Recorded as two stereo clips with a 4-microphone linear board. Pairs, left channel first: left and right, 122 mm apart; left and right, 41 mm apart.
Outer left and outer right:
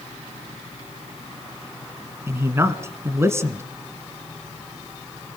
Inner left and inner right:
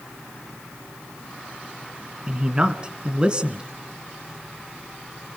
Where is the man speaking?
20° right (ahead or behind), 1.3 m.